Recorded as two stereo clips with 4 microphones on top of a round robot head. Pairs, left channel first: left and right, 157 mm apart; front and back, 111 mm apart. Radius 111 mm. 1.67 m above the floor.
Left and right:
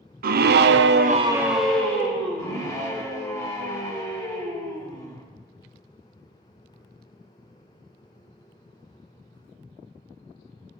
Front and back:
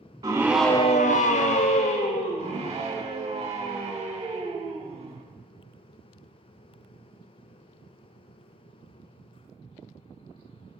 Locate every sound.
0.2 s a scream: 110° right, 0.8 m; by 2.7 s 20° left, 1.8 m
2.4 s a scream: 155° left, 2.5 m